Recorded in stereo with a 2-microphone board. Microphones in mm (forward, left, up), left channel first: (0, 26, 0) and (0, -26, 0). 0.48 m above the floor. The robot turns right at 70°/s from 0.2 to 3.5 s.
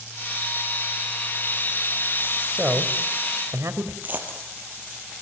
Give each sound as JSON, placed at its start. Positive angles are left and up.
{"t": 2.5, "sound": "a man speaking", "side_deg": -15, "distance_m": 2.0}
{"t": 4.0, "sound": "a dropped coin", "side_deg": -35, "distance_m": 3.0}